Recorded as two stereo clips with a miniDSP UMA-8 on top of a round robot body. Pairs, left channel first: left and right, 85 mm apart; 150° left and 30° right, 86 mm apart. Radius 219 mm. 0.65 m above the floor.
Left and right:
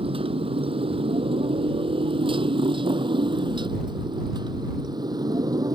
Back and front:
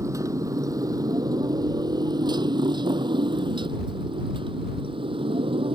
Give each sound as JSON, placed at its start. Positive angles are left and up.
{"t": 0.0, "sound": "a motorcycle", "azimuth_deg": -85}